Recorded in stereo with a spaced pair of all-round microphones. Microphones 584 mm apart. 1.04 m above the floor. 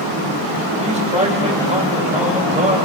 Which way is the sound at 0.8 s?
10° right (ahead or behind).